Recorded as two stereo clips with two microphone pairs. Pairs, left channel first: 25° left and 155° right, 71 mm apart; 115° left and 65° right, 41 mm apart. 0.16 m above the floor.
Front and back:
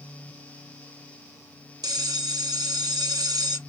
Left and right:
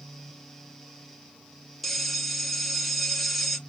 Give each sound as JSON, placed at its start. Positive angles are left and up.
{"t": 1.8, "sound": "a bell", "azimuth_deg": -155, "distance_m": 0.8}